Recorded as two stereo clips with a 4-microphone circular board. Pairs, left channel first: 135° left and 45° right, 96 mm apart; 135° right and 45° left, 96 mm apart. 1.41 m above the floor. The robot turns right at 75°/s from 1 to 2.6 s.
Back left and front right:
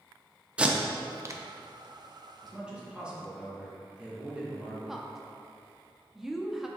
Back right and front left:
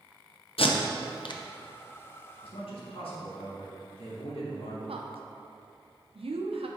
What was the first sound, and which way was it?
Tape being pulled, 125° right.